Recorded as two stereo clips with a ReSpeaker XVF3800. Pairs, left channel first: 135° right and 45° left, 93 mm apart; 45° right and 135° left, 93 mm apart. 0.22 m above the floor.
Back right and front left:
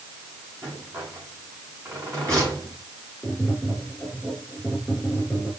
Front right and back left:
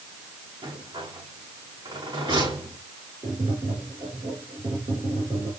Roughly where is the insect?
I don't hear an insect.